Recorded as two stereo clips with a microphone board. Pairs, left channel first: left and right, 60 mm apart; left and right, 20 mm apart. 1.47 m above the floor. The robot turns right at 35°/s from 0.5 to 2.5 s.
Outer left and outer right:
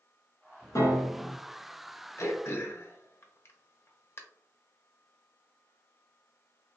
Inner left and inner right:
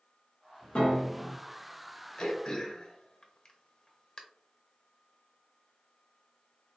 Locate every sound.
0.8 s a piano: 65° left (ahead or behind), 1.4 m; by 1.4 s 70° left (ahead or behind), 1.4 m
2.2 s throat clearing: 45° left (ahead or behind), 0.8 m; by 4.2 s 40° left (ahead or behind), 0.8 m